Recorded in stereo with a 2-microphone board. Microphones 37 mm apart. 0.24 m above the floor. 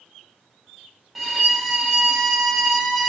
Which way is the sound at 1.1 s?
Centre (ahead or behind).